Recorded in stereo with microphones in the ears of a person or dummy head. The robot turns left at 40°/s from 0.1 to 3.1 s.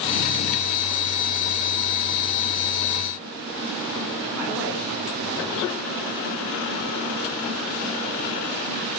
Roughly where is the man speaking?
Centre.